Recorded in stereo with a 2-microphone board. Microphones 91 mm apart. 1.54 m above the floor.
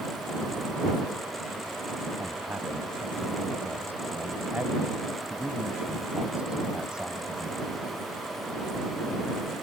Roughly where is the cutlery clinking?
No cutlery clinking in this recording.